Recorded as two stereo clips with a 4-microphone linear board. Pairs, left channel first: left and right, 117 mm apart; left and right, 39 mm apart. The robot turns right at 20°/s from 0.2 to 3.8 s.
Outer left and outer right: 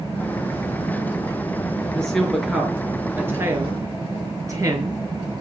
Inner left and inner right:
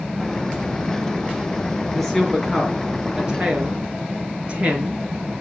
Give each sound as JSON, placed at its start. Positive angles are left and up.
{"t": 1.9, "sound": "a woman speaking", "side_deg": 10, "distance_m": 4.5}